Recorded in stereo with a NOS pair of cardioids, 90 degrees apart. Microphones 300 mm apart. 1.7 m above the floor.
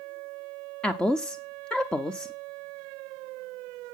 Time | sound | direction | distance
0.8 | a woman speaking | 5° left | 0.6 m